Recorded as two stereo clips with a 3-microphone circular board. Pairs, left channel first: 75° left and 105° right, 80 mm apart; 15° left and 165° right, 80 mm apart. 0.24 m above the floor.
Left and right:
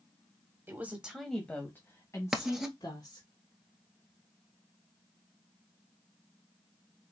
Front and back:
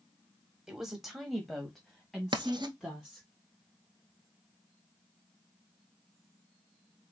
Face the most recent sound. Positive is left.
turn(degrees=170)